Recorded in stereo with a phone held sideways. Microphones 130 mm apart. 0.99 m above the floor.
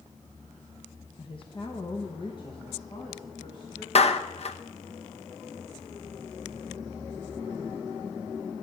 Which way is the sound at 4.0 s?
50° left (ahead or behind).